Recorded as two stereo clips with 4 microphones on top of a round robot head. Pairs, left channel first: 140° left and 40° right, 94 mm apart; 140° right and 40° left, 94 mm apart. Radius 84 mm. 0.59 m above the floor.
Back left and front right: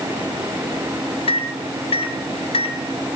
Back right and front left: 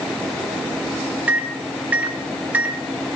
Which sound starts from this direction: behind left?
A microwave, at 1.3 s.